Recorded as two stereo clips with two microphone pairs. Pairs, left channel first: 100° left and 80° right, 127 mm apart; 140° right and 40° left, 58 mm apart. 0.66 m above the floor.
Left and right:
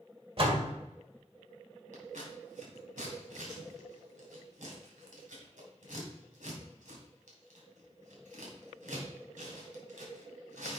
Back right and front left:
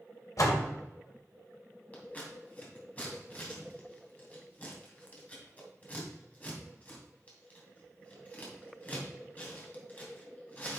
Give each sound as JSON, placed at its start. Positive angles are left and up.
{"t": 0.4, "sound": "a door slam", "azimuth_deg": -120, "distance_m": 1.7}
{"t": 1.9, "sound": "scissors", "azimuth_deg": -75, "distance_m": 3.0}